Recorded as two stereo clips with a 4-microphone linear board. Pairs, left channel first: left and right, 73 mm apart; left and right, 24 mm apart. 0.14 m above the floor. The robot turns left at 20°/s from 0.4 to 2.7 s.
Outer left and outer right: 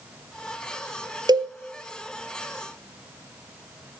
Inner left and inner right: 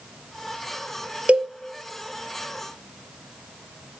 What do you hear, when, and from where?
1.3 s a cowbell: 70° right (ahead or behind), 0.7 m